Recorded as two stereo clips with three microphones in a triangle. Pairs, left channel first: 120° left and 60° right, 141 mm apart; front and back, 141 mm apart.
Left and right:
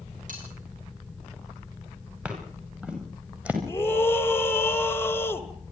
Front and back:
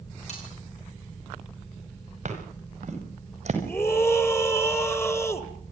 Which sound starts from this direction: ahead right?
Cutlery clinking, at 0.3 s.